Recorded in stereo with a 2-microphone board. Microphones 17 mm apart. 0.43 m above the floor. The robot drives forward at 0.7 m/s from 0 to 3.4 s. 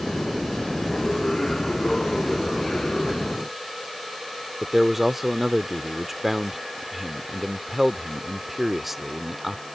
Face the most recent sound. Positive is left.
turn(degrees=-10)  # may be behind; listen again after turning